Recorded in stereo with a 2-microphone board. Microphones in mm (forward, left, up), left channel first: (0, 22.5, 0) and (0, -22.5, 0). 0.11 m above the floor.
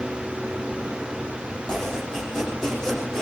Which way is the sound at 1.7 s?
15° left (ahead or behind).